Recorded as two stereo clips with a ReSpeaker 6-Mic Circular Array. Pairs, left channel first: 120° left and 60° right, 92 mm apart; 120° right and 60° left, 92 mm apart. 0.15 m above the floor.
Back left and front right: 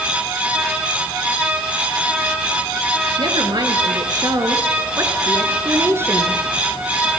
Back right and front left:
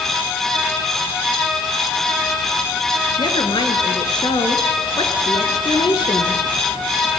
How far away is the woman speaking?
About 3.5 m.